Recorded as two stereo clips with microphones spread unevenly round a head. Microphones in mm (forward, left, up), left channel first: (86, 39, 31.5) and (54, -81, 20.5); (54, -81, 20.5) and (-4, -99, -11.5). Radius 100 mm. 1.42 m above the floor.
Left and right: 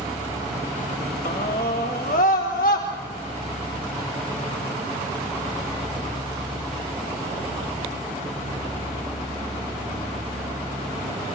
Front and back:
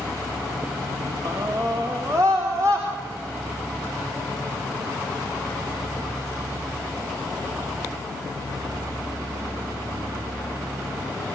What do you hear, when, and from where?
1.2 s a scream: 125° left, 2.5 m; by 2.9 s 120° left, 4 m